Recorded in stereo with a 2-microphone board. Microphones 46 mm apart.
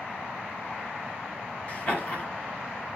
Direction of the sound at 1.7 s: 30° left (ahead or behind).